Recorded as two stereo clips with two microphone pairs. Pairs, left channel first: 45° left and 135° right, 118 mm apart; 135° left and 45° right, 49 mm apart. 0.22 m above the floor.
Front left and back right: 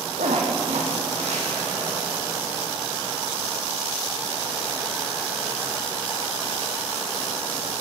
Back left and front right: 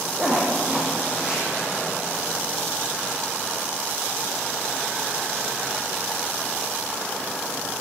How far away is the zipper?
About 7.5 m.